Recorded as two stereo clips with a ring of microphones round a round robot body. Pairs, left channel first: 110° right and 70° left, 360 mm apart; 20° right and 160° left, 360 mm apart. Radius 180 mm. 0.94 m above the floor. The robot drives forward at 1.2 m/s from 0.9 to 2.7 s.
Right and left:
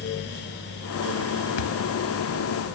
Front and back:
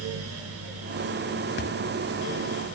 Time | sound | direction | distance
1.6 | a thud | 85° right | ?